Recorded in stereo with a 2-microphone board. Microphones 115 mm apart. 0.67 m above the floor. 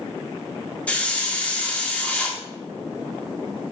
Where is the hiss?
10° left (ahead or behind), 1.5 m.